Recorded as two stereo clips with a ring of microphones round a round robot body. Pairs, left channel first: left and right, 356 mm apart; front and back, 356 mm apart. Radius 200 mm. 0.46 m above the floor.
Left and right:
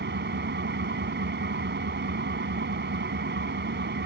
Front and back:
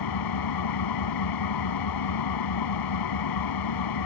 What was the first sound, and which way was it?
An engine running, 30° right.